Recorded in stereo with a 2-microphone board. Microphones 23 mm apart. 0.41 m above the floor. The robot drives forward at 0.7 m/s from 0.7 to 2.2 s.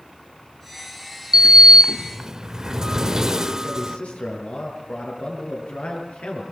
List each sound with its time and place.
1.3 s a sliding door: 35° right (ahead or behind), 0.5 m; by 4.0 s 30° right (ahead or behind), 0.6 m
3.6 s a man speaking: 75° left (ahead or behind), 8 m